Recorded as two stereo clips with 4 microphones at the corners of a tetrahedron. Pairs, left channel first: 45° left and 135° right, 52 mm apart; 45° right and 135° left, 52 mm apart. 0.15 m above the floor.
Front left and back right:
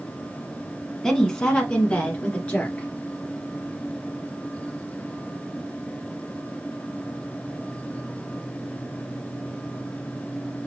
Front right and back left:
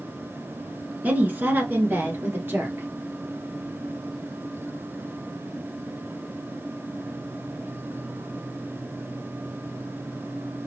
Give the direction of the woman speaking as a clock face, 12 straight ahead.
8 o'clock.